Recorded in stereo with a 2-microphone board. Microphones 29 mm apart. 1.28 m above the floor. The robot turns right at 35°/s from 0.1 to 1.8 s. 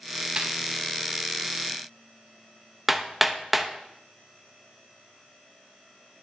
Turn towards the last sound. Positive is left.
turn(degrees=-5)  # may be behind; listen again after turning